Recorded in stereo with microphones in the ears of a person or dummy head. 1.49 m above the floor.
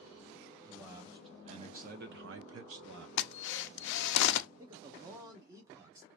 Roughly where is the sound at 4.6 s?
Centre.